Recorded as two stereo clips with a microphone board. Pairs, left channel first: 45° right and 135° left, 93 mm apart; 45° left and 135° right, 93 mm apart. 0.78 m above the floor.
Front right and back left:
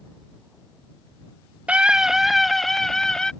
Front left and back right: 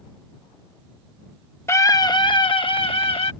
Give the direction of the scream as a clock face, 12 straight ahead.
10 o'clock.